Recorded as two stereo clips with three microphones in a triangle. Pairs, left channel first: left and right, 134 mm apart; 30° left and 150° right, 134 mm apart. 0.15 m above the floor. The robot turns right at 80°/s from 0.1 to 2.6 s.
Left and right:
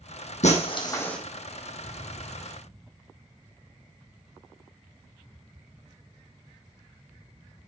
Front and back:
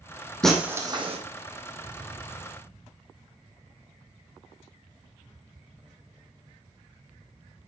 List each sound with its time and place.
0.4 s breaking glass: 110° left, 3.5 m; by 1.2 s 175° left, 3.5 m